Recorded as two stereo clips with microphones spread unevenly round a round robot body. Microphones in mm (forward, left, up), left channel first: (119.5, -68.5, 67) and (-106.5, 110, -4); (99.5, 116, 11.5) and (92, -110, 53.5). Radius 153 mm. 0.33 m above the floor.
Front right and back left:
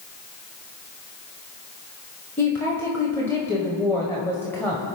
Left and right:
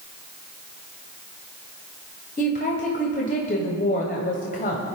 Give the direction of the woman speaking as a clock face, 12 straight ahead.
10 o'clock.